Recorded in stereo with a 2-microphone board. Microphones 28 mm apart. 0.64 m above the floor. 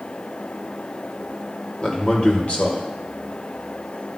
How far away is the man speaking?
About 1.9 m.